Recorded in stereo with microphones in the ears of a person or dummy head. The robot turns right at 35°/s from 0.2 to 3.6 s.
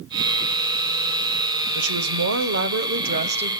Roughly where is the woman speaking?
Right.